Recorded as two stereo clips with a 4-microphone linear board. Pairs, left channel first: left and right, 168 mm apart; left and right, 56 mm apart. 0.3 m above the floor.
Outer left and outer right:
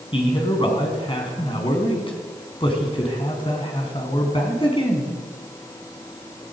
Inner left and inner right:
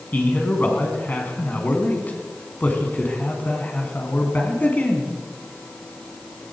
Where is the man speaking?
30° left (ahead or behind), 3.5 m.